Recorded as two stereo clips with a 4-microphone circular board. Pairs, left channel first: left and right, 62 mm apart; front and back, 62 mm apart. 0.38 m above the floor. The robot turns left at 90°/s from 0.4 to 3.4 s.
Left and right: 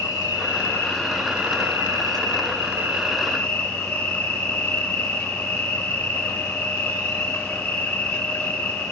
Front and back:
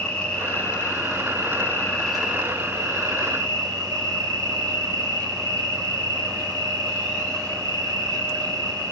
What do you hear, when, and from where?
0.0 s an insect: 70° left, 3 m; by 8.9 s 160° left, 3 m